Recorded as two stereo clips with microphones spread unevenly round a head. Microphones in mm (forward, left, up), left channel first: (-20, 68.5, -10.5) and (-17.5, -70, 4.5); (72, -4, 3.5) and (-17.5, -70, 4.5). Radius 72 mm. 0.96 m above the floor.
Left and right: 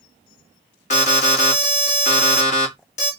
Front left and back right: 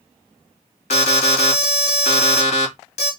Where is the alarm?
55° left, 2 m.